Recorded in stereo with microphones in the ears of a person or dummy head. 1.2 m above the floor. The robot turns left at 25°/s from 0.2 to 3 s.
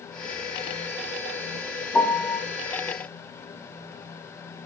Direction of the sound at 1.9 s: 10° left (ahead or behind).